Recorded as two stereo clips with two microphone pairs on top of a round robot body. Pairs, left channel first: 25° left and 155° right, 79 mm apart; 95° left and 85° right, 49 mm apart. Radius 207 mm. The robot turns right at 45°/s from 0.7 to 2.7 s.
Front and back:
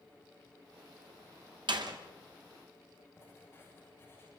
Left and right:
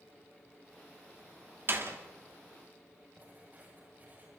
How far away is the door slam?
About 1.8 m.